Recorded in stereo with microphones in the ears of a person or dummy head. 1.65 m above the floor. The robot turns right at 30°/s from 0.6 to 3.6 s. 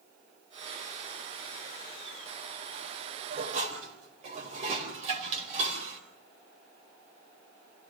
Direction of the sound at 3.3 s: 50° right (ahead or behind).